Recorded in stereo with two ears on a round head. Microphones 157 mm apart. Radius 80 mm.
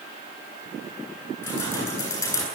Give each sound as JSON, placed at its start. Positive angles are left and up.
{"t": 1.4, "sound": "keys jangling", "side_deg": 15, "distance_m": 9.5}